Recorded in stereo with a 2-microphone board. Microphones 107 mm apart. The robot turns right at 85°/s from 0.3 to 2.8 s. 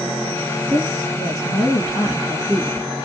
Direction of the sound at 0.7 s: 25° right.